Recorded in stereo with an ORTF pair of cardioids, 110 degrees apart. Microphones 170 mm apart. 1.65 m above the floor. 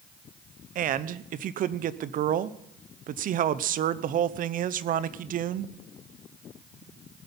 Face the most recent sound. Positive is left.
turn(degrees=-55)